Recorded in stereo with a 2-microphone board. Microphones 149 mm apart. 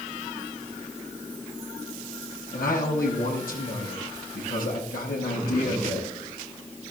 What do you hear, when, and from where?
2.5 s a man speaking: 85° left, 6 m